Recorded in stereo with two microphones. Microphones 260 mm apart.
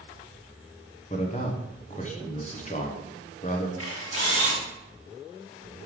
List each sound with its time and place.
1.1 s a man speaking: 30° left (ahead or behind), 1.1 m
3.8 s a camera shutter: 60° left (ahead or behind), 2.5 m